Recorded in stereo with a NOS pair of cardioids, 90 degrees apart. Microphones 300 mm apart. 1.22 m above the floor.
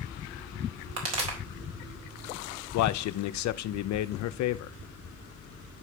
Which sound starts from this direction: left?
A man speaking, at 2.7 s.